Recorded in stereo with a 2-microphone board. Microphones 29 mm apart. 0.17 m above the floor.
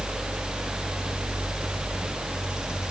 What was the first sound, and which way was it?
Only background noise.